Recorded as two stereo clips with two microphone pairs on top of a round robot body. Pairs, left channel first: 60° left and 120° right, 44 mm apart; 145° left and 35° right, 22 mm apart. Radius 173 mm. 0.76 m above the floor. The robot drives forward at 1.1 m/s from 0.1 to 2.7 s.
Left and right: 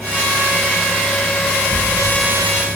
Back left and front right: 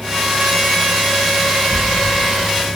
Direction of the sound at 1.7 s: 170° right.